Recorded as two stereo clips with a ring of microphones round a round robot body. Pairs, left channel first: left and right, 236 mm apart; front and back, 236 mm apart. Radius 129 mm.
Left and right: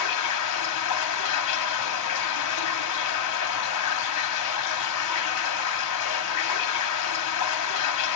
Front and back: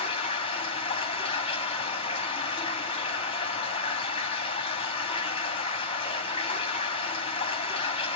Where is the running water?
70° left, 1.6 m.